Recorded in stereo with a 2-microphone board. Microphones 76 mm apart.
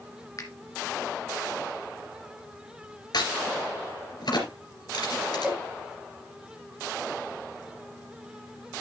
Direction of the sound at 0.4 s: 50° left (ahead or behind).